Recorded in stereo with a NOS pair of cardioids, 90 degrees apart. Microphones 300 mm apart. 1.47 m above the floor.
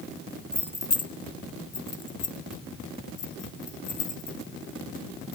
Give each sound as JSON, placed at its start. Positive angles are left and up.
{"t": 0.5, "sound": "keys jangling", "azimuth_deg": 5, "distance_m": 1.2}